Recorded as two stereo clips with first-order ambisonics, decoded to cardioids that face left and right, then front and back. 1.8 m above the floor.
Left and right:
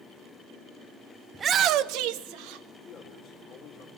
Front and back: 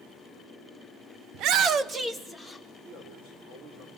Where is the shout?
165° right, 0.7 m; by 2.6 s 90° right, 1.9 m.